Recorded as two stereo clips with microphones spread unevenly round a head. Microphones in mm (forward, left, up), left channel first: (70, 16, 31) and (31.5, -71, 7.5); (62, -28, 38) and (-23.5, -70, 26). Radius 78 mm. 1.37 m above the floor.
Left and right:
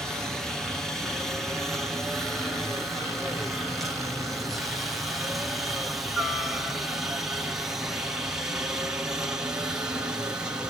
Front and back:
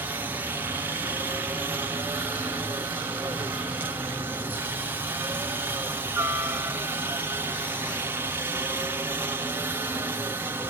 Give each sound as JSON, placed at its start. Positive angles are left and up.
{"t": 0.0, "sound": "a helicopter", "azimuth_deg": 170}